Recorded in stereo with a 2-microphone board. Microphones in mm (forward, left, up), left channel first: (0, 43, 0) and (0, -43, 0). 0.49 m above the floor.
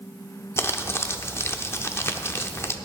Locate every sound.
0.6 s crumpling: 30° left (ahead or behind), 0.7 m